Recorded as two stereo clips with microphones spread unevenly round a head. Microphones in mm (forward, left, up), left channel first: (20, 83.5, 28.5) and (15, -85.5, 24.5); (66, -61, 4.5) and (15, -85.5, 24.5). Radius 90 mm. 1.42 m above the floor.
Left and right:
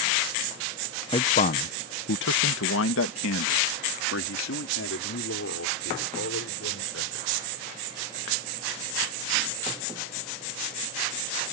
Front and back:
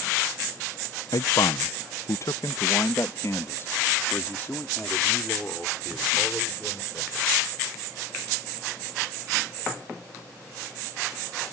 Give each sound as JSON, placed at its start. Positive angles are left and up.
{"t": 1.1, "sound": "a man speaking", "azimuth_deg": 25}